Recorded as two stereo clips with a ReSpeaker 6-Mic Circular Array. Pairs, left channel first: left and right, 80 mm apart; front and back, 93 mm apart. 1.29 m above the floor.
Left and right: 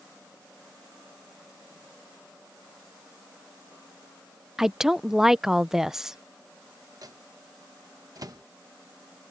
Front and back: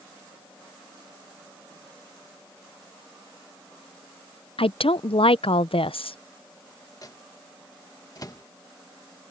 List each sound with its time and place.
4.6 s a woman speaking: 5° right
7.0 s a microwave: 50° right